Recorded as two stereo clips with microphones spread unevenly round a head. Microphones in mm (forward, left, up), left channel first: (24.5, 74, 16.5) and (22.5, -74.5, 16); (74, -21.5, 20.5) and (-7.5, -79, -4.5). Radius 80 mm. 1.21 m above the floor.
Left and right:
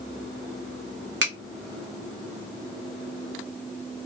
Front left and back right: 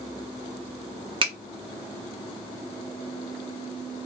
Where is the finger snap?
105° right, 0.9 m.